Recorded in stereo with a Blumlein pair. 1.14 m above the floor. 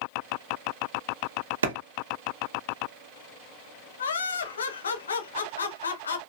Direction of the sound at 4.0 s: 70° left.